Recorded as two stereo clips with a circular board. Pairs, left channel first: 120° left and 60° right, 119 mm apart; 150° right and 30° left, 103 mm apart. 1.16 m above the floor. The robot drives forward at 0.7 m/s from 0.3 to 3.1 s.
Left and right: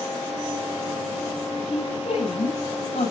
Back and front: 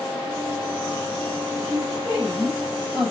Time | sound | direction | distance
1.6 | a woman speaking | 105° left | 6.5 m